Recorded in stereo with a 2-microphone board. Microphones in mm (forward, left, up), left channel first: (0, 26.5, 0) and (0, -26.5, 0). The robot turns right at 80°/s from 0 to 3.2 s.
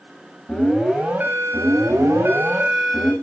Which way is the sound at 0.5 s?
165° left.